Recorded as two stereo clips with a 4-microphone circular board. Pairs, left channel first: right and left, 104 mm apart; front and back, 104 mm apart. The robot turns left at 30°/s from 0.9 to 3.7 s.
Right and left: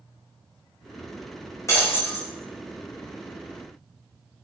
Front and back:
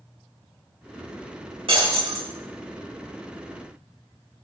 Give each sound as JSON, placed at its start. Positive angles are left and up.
{"t": 1.7, "sound": "breaking glass", "azimuth_deg": -150, "distance_m": 6.0}